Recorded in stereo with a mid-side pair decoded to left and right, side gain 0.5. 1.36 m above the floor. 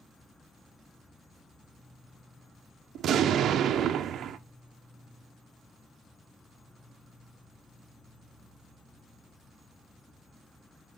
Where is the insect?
10° left, 0.9 m.